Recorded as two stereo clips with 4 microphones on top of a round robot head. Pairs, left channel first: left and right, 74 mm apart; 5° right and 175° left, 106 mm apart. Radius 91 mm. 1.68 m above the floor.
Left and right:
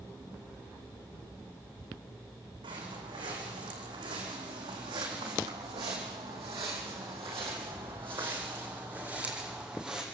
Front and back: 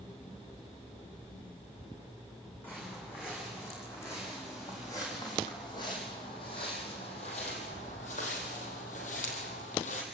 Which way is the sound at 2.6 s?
80° right.